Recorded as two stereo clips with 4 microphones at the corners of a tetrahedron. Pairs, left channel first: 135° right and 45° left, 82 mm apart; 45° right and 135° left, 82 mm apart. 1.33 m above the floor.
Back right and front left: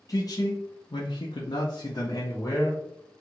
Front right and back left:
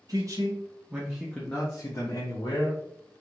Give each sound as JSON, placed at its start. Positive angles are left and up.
{"t": 0.1, "sound": "a man speaking", "azimuth_deg": 180, "distance_m": 0.9}